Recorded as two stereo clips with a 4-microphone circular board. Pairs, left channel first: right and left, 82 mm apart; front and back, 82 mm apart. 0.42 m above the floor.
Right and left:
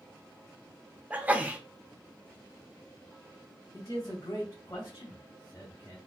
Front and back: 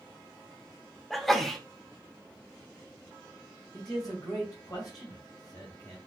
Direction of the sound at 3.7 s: 40° right.